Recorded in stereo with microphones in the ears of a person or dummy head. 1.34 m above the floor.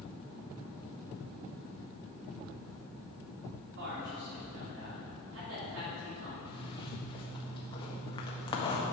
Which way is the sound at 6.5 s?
25° left (ahead or behind).